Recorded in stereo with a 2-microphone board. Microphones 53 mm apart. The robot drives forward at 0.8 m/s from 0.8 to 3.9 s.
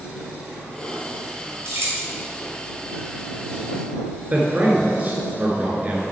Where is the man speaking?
35° right (ahead or behind), 1.3 m.